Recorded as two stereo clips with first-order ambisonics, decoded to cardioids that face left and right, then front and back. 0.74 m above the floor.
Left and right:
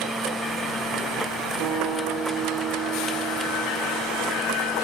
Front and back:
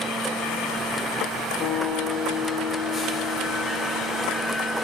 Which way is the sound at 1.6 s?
50° right.